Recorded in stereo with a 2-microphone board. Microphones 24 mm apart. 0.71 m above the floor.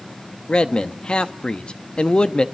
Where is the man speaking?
40° left (ahead or behind), 0.9 m.